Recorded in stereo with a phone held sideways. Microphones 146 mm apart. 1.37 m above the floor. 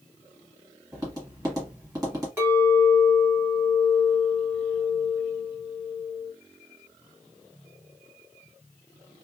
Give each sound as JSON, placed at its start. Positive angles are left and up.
{"t": 0.9, "sound": "tapping", "side_deg": -20, "distance_m": 1.6}
{"t": 2.4, "sound": "a clink", "side_deg": -15, "distance_m": 1.4}